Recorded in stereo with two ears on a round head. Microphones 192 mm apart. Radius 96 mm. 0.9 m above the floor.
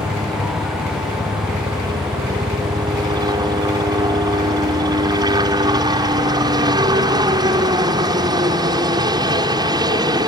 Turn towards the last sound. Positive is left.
turn(degrees=-20)  # may be behind; listen again after turning